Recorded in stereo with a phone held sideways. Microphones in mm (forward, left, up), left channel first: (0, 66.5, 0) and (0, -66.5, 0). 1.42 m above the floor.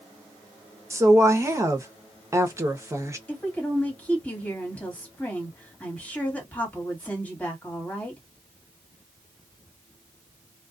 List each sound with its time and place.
0.9 s a woman speaking: 20° right (ahead or behind), 0.8 m
3.3 s a woman speaking: 15° left (ahead or behind), 1.5 m